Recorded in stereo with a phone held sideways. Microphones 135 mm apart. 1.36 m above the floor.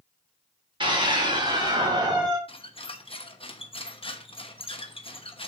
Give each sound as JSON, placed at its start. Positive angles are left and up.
{"t": 0.8, "sound": "a scream", "side_deg": -40, "distance_m": 3.5}
{"t": 2.5, "sound": "a squeak", "side_deg": 45, "distance_m": 0.9}